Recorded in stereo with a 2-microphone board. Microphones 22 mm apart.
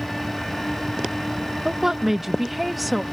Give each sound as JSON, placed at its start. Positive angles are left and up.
{"t": 1.6, "sound": "a woman speaking", "side_deg": -20}